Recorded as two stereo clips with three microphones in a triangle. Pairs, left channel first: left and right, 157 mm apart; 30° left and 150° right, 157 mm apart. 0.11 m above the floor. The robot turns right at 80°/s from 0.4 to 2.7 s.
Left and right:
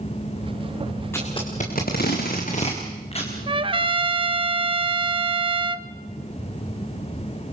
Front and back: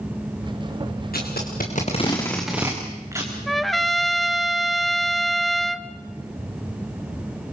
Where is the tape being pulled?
15° left, 4.5 m; by 3.4 s 140° left, 4.5 m.